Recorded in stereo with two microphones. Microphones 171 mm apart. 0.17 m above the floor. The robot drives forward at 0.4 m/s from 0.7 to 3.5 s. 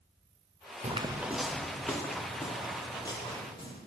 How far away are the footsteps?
About 0.7 m.